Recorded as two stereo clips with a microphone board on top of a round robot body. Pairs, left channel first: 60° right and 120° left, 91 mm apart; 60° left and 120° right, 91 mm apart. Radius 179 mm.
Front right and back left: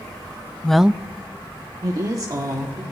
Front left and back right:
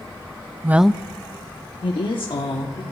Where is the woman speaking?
130° right, 0.5 m; by 2.8 s 75° left, 1.7 m.